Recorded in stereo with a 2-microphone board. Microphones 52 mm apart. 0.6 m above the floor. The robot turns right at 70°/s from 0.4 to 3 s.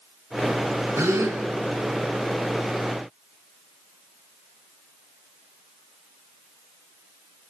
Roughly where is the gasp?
Right.